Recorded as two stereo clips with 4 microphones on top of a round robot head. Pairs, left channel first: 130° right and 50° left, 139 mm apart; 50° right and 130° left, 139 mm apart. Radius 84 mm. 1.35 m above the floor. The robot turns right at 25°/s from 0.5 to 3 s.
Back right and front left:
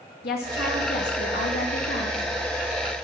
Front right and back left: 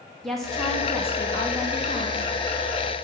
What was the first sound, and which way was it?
A woman speaking, 135° right.